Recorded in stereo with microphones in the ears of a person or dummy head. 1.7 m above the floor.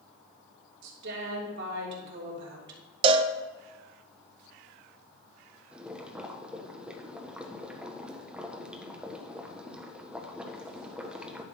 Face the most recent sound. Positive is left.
turn(degrees=-10)  # may be behind; listen again after turning